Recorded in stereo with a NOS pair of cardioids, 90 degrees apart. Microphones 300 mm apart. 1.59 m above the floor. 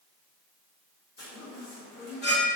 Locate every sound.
1.2 s a chime: 35° left, 1.6 m